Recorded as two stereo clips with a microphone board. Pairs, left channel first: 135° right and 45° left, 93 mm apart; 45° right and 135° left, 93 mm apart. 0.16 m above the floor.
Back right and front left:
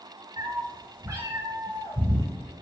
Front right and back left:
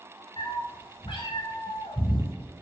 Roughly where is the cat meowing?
Ahead.